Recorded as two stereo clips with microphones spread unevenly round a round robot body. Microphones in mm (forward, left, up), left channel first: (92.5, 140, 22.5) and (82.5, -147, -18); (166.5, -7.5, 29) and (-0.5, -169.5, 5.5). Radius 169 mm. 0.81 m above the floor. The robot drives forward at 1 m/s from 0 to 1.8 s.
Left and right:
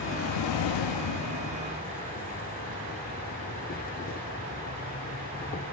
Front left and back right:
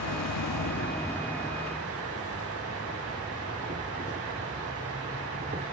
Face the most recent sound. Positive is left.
turn(degrees=155)